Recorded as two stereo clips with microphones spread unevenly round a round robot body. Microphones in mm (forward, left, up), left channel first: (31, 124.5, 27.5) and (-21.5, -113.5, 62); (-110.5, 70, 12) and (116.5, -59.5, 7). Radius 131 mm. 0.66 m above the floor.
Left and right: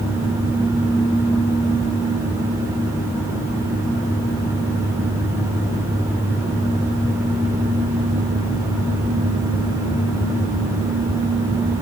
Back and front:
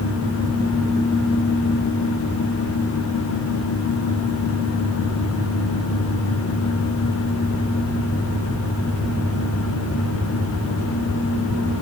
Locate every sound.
Only background noise.